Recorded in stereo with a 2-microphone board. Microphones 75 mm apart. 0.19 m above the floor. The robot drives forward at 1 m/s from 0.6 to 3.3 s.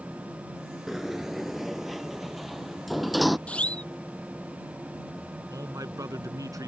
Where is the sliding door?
5° right (ahead or behind); by 3.4 s centre (ahead or behind).